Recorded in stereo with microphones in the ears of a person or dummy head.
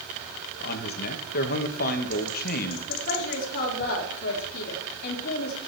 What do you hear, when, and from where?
0.6 s a man speaking: 45° left (ahead or behind), 1.8 m
2.9 s a woman speaking: 50° left (ahead or behind), 2.5 m